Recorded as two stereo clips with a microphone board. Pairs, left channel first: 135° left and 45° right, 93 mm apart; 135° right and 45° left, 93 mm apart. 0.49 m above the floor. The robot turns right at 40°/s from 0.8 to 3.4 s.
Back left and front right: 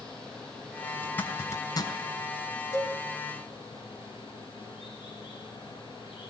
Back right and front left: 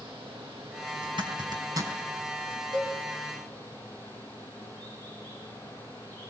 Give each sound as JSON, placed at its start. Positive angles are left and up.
{"t": 0.0, "sound": "running water", "azimuth_deg": 55, "distance_m": 10.0}
{"t": 1.0, "sound": "a zipper", "azimuth_deg": 60, "distance_m": 3.5}
{"t": 2.7, "sound": "a cowbell", "azimuth_deg": 80, "distance_m": 4.0}